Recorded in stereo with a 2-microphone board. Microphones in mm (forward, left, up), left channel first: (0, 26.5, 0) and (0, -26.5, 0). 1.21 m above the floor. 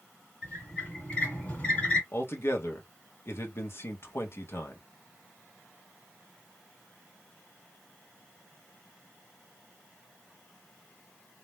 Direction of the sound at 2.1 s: 50° left (ahead or behind).